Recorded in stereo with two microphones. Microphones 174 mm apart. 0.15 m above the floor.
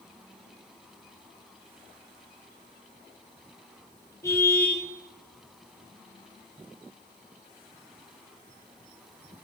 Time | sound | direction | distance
4.2 | a car horn | 15° left (ahead or behind) | 10 m